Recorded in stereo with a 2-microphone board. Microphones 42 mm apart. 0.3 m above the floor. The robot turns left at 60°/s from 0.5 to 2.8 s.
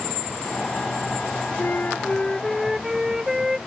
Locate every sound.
1.6 s a flute: 60° left; by 3.6 s 15° right